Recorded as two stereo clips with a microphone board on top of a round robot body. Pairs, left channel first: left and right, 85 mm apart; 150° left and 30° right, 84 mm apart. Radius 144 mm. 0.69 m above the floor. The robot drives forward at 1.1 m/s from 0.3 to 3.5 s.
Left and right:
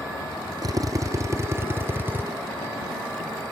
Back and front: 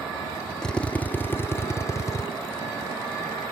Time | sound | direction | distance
0.6 | a drill | 130° right | ?